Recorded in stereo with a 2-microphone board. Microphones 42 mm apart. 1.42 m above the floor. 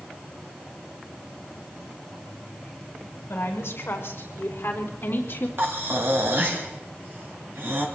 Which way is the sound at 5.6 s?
55° right (ahead or behind).